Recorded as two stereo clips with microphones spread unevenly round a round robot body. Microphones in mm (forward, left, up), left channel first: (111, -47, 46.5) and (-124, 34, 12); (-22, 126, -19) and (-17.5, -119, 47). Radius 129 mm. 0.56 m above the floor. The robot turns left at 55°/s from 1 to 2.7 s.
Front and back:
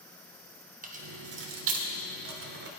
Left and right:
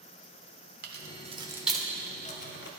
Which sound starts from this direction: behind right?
Keys jangling, at 0.8 s.